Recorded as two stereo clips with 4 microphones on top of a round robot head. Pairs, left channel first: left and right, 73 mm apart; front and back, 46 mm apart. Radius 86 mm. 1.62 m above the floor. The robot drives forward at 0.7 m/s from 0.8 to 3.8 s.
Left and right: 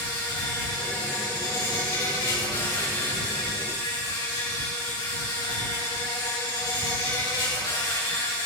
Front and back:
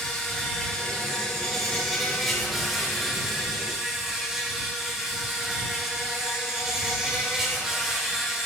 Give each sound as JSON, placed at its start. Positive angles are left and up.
{"t": 0.0, "sound": "an insect", "azimuth_deg": 75, "distance_m": 5.0}